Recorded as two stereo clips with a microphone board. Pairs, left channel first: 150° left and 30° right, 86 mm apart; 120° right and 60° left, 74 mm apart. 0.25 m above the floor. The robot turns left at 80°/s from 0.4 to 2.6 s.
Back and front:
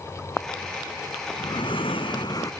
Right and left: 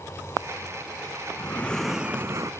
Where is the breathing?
170° right; by 2.5 s 100° left.